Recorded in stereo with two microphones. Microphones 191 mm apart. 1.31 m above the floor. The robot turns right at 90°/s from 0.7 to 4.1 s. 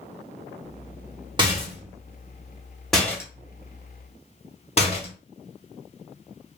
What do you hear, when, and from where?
1.4 s a rattle: 25° right (ahead or behind), 1.1 m; by 5.1 s 35° left (ahead or behind), 1.1 m